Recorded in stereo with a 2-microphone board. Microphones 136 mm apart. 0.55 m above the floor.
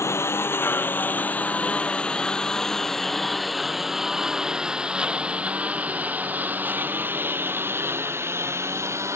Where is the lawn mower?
20° left (ahead or behind); by 9.2 s 20° right (ahead or behind).